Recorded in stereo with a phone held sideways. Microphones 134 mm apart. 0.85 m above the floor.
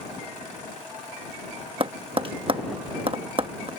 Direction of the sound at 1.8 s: 40° right (ahead or behind).